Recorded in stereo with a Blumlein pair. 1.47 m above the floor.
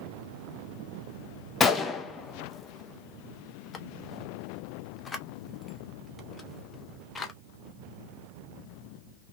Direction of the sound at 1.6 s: 15° left.